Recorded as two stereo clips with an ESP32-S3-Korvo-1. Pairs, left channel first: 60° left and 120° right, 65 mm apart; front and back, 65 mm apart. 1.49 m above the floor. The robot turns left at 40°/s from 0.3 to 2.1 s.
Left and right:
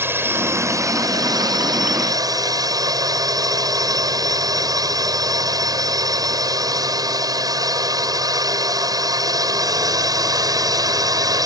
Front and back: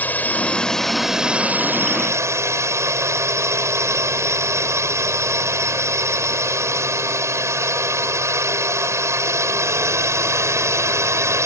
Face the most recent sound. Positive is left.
turn(degrees=-135)